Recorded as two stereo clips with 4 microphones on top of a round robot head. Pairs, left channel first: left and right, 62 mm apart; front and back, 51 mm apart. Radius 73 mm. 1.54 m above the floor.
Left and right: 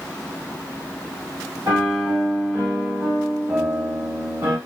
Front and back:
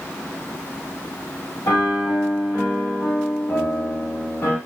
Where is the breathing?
No breathing in this recording.